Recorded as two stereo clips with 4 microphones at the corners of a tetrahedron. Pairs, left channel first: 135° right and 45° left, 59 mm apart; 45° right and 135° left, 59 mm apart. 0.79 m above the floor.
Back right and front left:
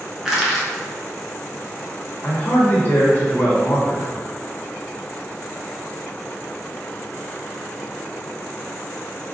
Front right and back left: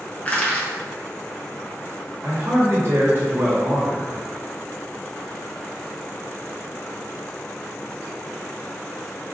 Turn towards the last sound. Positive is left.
turn(degrees=170)